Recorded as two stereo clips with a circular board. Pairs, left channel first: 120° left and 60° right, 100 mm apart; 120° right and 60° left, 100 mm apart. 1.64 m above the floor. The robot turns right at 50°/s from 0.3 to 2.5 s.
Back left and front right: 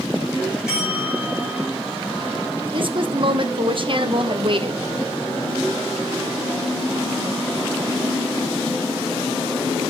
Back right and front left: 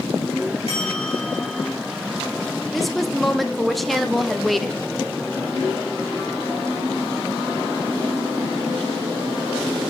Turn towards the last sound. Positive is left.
turn(degrees=-30)